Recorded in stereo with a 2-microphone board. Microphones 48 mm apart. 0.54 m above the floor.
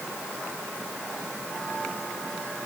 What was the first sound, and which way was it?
Only background noise.